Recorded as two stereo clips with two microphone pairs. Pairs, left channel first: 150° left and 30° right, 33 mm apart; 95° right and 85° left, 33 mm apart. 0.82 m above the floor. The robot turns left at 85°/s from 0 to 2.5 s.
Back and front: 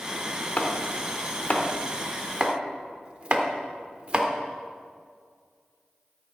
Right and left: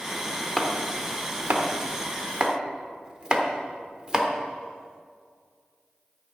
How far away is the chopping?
About 1.2 m.